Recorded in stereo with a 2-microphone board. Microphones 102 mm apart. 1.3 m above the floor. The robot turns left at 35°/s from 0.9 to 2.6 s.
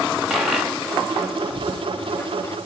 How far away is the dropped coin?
About 0.8 m.